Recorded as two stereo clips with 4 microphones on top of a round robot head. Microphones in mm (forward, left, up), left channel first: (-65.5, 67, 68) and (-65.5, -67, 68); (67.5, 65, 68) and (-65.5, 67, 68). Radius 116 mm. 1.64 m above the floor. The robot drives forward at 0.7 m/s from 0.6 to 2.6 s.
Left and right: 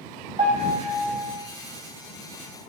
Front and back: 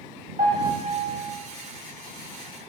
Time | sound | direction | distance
0.4 | a piano | 125° right | 2.5 m